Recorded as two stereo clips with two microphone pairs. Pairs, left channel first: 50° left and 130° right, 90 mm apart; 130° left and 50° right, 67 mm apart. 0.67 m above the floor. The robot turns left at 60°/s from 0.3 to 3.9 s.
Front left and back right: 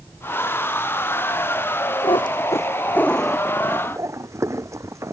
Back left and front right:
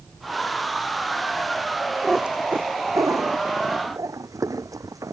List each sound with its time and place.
2.0 s a cat meowing: 35° left; by 5.1 s 75° right